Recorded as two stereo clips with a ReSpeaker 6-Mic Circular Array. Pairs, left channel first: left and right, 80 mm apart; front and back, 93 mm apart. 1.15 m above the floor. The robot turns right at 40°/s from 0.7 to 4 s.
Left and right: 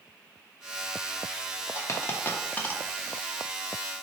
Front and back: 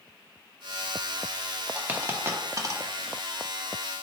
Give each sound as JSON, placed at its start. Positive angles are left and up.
{"t": 1.7, "sound": "a dropped coin", "azimuth_deg": 110, "distance_m": 0.5}